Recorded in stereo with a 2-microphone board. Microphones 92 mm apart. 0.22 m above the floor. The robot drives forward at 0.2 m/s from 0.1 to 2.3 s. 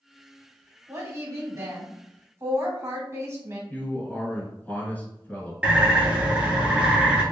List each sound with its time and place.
0.9 s a woman speaking: 35° right (ahead or behind), 1.5 m
3.7 s a man speaking: 20° left (ahead or behind), 1.5 m
5.6 s a bird: 15° right (ahead or behind), 1.1 m